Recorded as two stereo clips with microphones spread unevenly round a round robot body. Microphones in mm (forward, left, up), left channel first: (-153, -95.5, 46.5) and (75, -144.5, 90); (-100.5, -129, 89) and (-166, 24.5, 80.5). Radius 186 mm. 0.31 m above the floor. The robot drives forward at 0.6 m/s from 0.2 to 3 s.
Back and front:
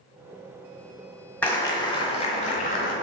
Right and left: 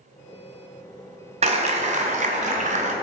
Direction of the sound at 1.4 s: 105° left.